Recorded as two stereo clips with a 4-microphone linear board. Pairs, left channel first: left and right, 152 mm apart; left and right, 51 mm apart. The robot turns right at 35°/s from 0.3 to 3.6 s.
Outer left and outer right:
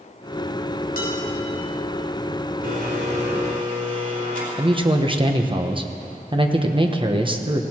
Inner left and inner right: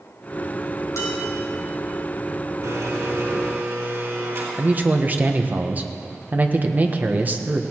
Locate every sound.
1.0 s dishes clattering: 75° left (ahead or behind), 5 m; by 1.2 s 70° left (ahead or behind), 5 m
2.6 s a blender: 95° right, 4 m; by 4.5 s 65° right, 4 m
4.5 s a man speaking: 35° right (ahead or behind), 1.3 m